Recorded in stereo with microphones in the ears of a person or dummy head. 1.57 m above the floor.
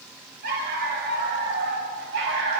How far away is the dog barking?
About 3.5 m.